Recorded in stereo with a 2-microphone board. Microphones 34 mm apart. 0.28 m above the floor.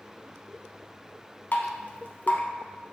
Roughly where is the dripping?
Left.